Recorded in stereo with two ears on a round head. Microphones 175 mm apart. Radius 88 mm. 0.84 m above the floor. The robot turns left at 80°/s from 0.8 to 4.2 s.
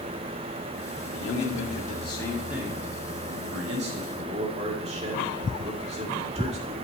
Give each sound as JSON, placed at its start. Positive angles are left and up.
{"t": 1.1, "sound": "a man speaking", "azimuth_deg": 100, "distance_m": 2.0}